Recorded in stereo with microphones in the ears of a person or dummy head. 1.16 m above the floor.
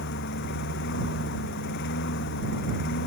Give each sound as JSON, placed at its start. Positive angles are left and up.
{"t": 0.0, "sound": "a lawn mower", "side_deg": 65}